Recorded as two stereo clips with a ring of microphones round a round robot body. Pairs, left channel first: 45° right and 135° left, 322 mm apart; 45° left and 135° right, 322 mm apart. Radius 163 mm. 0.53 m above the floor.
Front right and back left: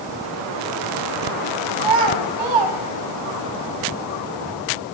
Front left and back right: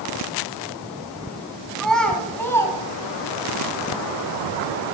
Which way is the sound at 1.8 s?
135° left.